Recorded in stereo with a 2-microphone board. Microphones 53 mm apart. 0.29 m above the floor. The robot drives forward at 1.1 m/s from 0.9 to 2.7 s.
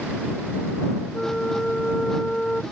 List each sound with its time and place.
1.1 s a flute: 10° left (ahead or behind)